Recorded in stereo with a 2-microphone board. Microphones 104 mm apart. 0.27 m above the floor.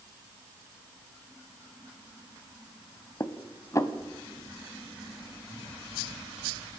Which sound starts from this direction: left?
Dishes clattering, at 3.2 s.